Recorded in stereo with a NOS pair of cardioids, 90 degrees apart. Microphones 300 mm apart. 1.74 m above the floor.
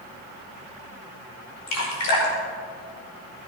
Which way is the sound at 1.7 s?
60° left.